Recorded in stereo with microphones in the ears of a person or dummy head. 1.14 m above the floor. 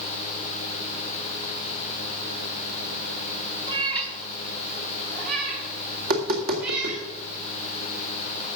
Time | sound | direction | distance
3.7 | a cat meowing | 25° right (ahead or behind) | 1.5 m
6.0 | tapping | 45° right (ahead or behind) | 2.5 m